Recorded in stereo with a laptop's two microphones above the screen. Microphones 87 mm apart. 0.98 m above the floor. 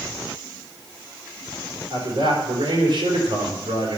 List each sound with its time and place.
1.9 s a man speaking: 70° right (ahead or behind), 4 m